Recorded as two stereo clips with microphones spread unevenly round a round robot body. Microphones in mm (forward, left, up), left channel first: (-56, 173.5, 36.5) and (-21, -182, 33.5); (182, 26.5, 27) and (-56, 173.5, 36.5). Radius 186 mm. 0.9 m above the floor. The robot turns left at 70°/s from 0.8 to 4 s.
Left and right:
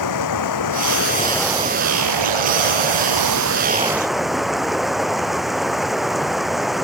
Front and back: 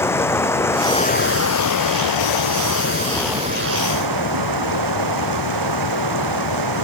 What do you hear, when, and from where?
0.0 s running water: 50° left; by 6.8 s 175° right